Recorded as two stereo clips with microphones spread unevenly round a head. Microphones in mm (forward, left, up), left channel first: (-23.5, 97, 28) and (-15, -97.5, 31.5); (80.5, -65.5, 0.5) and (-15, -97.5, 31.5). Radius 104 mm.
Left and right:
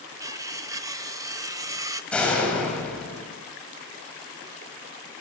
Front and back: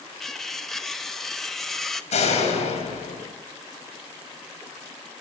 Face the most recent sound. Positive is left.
turn(degrees=5)